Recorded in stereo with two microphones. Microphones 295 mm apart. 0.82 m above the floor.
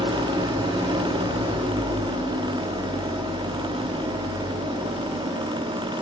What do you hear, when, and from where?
0.0 s an engine running: 15° right (ahead or behind), 1.2 m